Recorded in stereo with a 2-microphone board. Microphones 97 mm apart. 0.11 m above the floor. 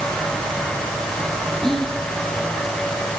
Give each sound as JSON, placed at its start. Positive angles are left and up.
{"t": 1.6, "sound": "whispering", "side_deg": 5, "distance_m": 1.8}